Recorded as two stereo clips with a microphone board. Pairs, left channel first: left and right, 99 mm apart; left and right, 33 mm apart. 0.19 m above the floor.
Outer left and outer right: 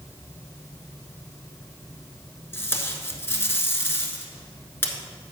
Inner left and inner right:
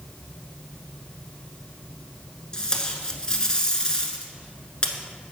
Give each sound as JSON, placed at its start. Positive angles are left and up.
{"t": 2.5, "sound": "tape being pulled", "side_deg": 25, "distance_m": 1.0}